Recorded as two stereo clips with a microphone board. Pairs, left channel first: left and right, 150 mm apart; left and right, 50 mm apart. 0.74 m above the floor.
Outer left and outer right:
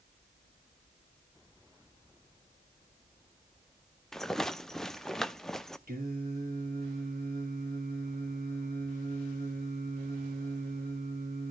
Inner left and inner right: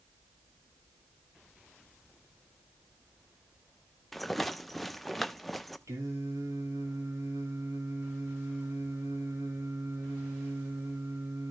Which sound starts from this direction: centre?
A rattle, at 4.1 s.